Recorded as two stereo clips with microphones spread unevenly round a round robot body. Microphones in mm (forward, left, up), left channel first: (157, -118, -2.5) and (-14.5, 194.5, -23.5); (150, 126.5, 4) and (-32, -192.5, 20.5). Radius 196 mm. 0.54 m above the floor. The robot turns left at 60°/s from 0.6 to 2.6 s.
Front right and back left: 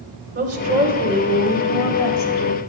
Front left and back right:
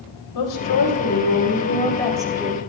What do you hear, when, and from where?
0.3 s a woman speaking: 70° left, 2 m; by 2.6 s 50° right, 2 m